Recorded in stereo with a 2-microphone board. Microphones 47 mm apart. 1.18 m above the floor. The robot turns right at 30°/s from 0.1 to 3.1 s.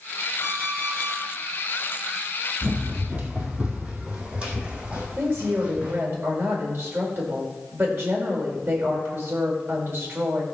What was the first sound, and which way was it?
An alarm clock, 40° left (ahead or behind).